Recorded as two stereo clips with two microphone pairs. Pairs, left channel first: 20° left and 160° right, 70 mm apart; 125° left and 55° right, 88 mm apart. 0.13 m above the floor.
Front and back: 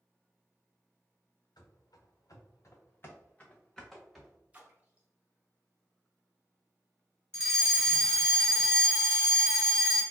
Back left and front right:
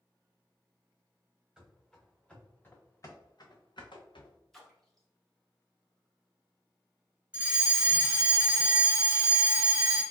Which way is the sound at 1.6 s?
35° left.